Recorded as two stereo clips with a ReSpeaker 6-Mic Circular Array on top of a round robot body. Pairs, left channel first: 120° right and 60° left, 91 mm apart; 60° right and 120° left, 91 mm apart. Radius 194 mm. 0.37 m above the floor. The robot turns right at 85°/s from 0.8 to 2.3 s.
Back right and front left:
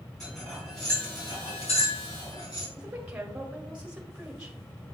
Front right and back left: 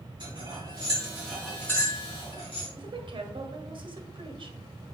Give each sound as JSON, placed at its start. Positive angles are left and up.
{"t": 0.2, "sound": "cutlery clinking", "azimuth_deg": 155, "distance_m": 4.0}
{"t": 2.8, "sound": "a woman speaking", "azimuth_deg": 135, "distance_m": 1.6}